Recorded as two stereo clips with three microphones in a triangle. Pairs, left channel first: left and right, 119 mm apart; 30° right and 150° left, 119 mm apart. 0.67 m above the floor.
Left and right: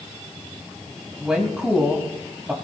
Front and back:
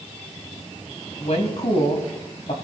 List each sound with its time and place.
1.2 s a woman speaking: 5° right, 4 m